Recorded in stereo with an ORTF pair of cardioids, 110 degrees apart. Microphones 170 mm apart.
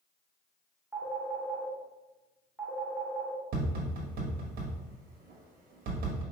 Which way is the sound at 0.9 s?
5° right.